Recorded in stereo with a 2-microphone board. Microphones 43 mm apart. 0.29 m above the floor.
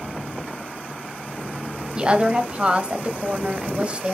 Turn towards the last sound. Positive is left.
turn(degrees=-25)  # may be behind; listen again after turning